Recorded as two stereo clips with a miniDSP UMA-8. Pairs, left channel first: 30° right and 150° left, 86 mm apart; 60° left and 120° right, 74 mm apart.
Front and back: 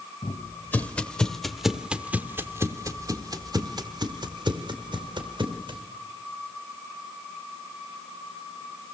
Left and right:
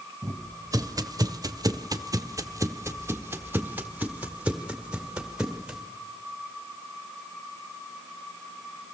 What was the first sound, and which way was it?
Footsteps, 85° right.